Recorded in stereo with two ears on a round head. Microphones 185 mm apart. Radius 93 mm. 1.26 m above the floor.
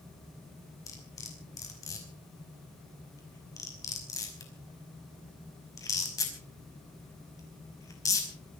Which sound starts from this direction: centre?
Cutlery clinking, at 0.9 s.